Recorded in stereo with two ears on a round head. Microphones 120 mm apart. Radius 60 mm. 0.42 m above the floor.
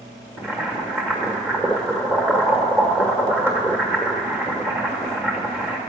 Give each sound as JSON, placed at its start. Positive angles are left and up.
{"t": 0.4, "sound": "boiling", "side_deg": -15, "distance_m": 1.6}